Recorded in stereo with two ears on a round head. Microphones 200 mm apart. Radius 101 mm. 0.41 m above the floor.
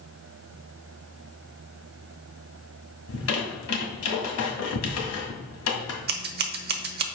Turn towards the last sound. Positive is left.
turn(degrees=-45)  # may be behind; listen again after turning